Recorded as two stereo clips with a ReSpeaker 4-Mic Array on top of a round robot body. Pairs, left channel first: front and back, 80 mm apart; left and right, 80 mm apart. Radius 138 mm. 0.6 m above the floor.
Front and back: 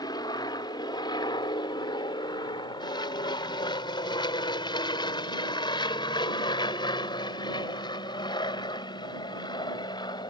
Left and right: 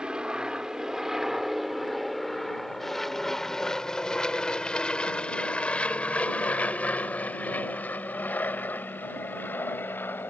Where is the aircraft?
15° right; by 10.3 s 25° left.